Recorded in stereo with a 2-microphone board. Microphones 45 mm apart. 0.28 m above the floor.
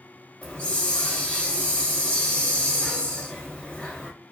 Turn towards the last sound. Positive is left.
turn(degrees=25)  # may be behind; listen again after turning